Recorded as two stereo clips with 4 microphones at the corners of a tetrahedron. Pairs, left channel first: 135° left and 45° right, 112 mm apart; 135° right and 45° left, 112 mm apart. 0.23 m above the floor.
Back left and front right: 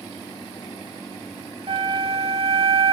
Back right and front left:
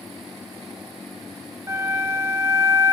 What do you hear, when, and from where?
1.7 s a flute: 15° right, 0.7 m